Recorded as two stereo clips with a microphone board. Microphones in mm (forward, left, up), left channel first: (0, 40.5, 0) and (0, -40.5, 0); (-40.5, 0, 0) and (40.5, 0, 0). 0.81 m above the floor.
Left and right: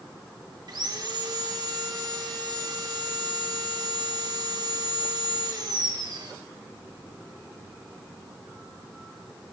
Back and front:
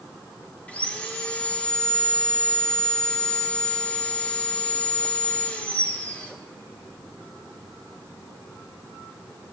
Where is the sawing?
110° right, 1.1 m.